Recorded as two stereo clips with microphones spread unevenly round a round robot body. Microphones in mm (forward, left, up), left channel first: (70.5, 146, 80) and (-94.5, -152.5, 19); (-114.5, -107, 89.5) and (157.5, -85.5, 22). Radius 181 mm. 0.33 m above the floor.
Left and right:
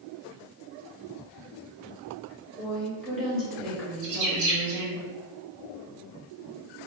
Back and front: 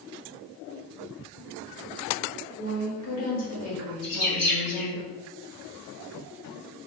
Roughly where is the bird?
Behind right.